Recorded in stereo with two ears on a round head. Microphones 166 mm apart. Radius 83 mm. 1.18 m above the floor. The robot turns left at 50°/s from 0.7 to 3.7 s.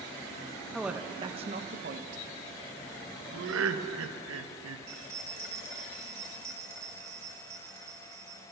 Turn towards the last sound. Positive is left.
turn(degrees=-20)  # may be behind; listen again after turning